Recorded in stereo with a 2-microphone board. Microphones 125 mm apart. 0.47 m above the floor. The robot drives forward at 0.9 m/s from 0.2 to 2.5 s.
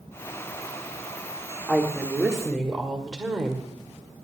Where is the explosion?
No explosion in this recording.